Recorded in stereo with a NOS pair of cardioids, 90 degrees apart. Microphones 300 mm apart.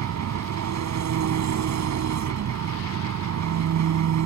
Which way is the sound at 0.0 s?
65° right.